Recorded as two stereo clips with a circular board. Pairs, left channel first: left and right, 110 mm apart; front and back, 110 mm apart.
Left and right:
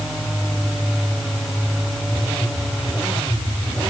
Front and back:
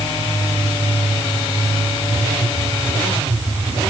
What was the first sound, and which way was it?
Only background noise.